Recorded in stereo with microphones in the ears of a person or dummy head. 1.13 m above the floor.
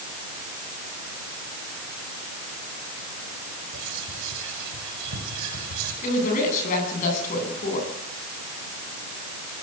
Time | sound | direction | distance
3.7 | whispering | 80° right | 6.5 m
6.0 | a woman speaking | 45° left (ahead or behind) | 10 m